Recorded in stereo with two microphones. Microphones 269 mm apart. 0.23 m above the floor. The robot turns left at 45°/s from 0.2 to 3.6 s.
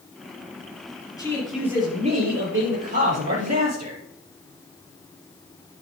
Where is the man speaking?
15° left, 5 m; by 4.0 s 95° right, 5 m.